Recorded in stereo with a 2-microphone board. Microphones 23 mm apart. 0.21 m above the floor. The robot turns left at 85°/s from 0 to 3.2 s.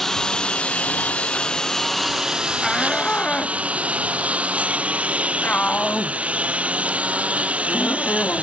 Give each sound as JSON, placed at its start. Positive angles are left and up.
{"t": 0.0, "sound": "a lawn mower", "azimuth_deg": 175}
{"t": 2.6, "sound": "a shout", "side_deg": 0}